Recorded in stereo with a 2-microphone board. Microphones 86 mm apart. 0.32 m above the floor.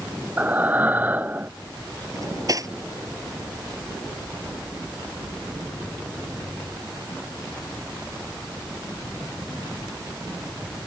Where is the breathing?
20° right (ahead or behind).